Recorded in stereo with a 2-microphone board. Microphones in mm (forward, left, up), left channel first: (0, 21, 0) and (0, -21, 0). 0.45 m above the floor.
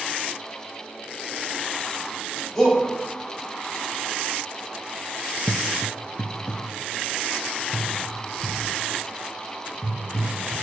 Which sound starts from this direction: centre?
A shout, at 2.5 s.